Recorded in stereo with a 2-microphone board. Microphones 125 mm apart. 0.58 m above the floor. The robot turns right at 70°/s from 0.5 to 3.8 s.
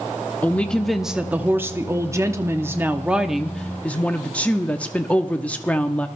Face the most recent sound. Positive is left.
turn(degrees=10)  # may be behind; listen again after turning